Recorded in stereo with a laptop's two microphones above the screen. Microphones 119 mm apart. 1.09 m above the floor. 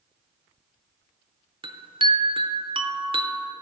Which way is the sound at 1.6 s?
45° right (ahead or behind).